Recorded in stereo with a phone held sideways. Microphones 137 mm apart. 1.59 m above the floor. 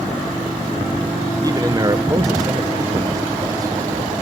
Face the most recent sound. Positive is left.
turn(degrees=-25)  # may be behind; listen again after turning